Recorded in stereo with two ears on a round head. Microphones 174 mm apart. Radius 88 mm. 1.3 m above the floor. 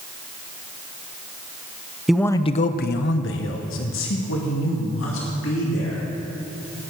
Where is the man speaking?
Centre (ahead or behind), 0.6 m; by 6.0 s 70° left (ahead or behind), 3.5 m.